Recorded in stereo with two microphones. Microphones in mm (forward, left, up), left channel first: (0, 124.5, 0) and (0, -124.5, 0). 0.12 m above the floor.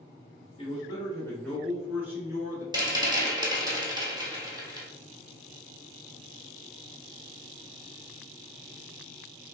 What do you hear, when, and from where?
0.6 s a man speaking: 20° left (ahead or behind), 1.2 m; by 2.6 s 15° right (ahead or behind), 1.4 m
2.7 s a rattle: 15° right (ahead or behind), 0.9 m